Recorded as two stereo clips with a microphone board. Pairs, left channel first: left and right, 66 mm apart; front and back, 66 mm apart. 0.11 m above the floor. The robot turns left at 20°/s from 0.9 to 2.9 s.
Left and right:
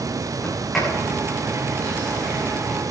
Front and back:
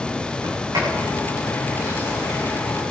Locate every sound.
0.4 s a sliding door: 175° left, 8 m; by 2.6 s 140° left, 8 m